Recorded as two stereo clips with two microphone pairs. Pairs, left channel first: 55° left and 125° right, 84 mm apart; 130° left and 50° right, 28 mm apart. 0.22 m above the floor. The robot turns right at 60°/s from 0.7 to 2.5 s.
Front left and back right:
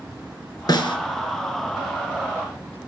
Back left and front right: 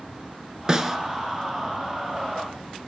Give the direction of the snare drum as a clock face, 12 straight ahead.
11 o'clock.